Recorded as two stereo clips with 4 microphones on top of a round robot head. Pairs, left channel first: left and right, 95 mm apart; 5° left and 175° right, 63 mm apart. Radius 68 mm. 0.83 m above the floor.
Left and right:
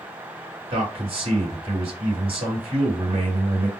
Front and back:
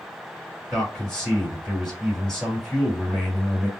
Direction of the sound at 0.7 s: 75° right.